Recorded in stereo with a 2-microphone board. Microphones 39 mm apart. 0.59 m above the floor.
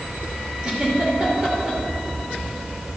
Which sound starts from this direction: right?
A giggle, at 0.6 s.